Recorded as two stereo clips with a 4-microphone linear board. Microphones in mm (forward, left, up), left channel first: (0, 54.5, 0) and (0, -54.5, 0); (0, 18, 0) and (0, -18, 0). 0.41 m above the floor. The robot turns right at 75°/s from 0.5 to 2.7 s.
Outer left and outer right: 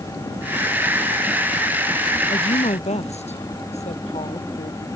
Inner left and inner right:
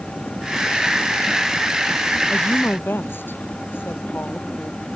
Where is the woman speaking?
55° left; by 4.9 s 85° left.